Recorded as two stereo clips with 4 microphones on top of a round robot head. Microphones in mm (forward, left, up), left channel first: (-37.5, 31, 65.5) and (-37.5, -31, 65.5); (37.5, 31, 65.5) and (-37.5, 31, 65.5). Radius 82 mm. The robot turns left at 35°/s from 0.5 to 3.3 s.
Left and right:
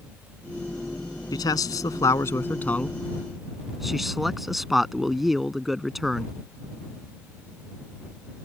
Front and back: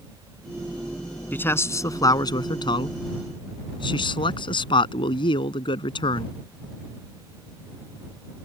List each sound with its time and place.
1.3 s a man speaking: 65° left; by 6.3 s 5° right